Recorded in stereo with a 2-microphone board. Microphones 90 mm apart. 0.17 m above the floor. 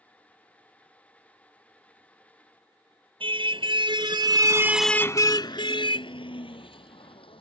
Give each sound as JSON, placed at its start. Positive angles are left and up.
{"t": 3.2, "sound": "a car horn", "side_deg": -75}